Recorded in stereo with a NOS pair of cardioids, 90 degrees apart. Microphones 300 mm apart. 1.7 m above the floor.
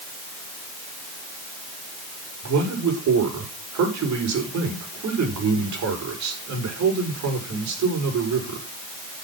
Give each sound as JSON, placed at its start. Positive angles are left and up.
{"t": 2.4, "sound": "a man speaking", "azimuth_deg": -70, "distance_m": 6.0}